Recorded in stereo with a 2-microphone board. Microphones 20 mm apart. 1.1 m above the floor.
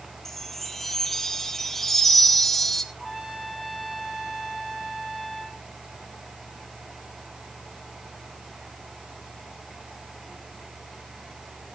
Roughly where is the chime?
Centre.